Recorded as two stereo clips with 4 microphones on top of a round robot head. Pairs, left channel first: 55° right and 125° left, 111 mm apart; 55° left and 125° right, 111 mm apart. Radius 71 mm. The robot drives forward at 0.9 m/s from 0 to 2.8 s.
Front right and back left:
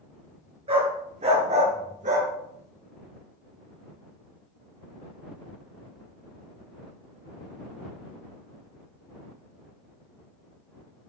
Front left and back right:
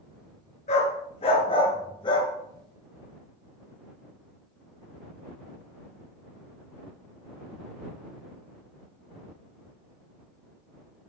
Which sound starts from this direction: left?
A dog barking, at 0.7 s.